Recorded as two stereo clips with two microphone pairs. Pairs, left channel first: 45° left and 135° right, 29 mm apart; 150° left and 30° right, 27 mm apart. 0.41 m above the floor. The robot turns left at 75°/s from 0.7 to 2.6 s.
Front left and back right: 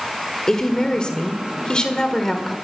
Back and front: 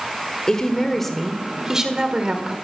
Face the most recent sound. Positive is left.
turn(degrees=-40)